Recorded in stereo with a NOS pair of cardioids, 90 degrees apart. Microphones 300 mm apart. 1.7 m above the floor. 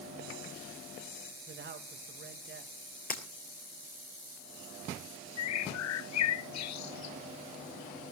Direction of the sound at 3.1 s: 30° left.